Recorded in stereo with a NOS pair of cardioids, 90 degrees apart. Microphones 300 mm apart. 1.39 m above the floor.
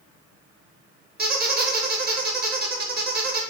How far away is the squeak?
About 0.7 m.